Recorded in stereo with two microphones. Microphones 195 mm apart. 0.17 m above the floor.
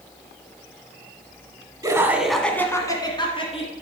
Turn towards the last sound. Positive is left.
turn(degrees=30)  # may be behind; listen again after turning